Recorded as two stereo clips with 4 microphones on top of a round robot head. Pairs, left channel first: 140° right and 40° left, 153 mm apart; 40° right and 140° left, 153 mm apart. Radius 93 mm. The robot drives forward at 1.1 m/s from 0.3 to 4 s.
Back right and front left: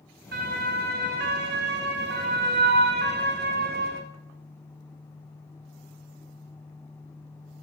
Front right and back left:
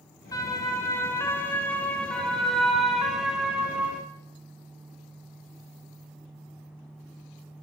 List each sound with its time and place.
0.3 s a siren: 30° left, 7 m; by 4.0 s 60° left, 7.5 m